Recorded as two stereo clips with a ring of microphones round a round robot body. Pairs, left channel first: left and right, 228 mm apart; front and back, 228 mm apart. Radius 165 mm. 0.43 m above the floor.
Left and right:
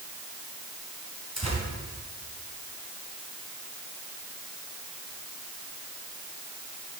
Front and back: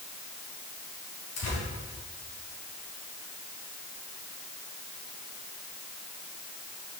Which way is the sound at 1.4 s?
25° right.